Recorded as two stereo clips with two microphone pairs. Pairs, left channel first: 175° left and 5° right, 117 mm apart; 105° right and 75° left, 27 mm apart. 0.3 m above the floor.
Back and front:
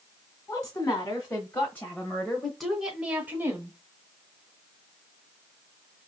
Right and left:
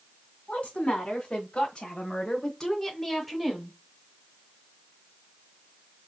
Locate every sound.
0.5 s a woman speaking: 130° right, 1.5 m; by 3.8 s 10° left, 1.0 m